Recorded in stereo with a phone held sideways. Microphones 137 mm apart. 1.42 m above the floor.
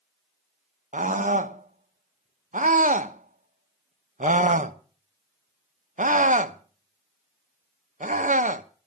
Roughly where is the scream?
Right.